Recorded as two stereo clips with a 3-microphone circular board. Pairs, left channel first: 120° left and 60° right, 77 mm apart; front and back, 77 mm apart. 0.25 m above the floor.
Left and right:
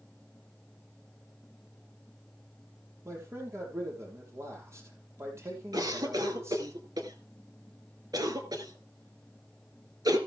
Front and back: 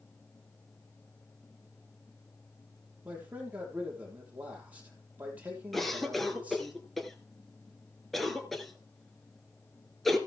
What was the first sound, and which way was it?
A man speaking, 110° right.